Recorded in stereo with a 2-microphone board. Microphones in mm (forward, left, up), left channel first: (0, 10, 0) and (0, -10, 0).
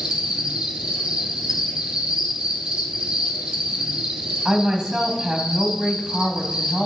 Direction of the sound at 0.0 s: 55° right (ahead or behind).